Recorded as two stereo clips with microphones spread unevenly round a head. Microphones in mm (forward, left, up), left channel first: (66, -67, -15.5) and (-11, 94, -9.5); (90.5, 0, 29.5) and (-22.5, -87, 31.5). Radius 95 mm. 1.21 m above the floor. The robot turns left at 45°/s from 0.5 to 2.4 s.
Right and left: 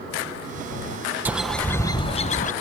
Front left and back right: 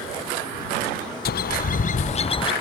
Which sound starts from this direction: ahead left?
A bird, at 1.2 s.